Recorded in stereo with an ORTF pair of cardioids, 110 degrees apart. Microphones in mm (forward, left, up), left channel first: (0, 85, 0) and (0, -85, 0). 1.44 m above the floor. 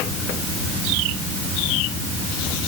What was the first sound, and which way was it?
Only background noise.